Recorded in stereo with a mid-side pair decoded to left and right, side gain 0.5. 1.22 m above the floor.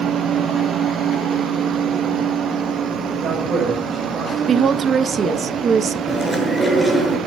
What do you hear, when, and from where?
3.1 s a man speaking: 45° right, 6.5 m; by 5.5 s 50° right, 7.5 m
4.5 s a woman speaking: 45° right, 1.2 m
6.1 s chewing: straight ahead, 7 m